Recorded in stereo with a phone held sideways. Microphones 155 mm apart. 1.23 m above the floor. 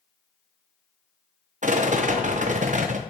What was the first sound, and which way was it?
A rattle, 50° right (ahead or behind).